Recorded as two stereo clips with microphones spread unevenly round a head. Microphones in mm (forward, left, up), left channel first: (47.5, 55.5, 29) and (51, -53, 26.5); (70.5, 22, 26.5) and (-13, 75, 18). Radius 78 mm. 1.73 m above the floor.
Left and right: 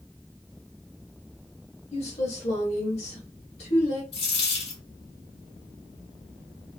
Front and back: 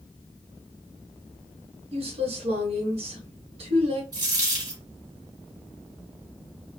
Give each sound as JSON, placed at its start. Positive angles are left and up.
{"t": 1.9, "sound": "a woman speaking", "azimuth_deg": 140, "distance_m": 1.3}
{"t": 4.1, "sound": "a dropped coin", "azimuth_deg": 110, "distance_m": 2.5}